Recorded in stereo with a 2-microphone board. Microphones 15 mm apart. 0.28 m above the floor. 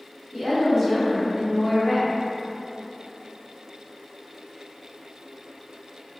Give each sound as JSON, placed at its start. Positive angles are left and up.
{"t": 0.3, "sound": "a woman speaking", "side_deg": -20, "distance_m": 1.7}